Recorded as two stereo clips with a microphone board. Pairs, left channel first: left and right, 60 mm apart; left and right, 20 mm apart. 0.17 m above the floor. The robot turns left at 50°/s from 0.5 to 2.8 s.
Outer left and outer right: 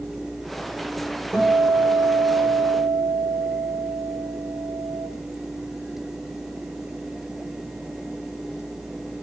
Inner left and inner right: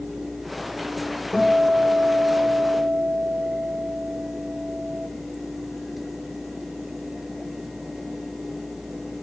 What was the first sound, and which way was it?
A guitar, 15° right.